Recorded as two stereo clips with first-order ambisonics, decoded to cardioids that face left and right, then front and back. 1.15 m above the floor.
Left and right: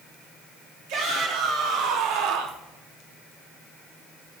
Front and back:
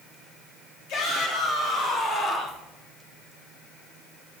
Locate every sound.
0.9 s a shout: 50° right, 3 m; by 2.6 s 75° right, 1.5 m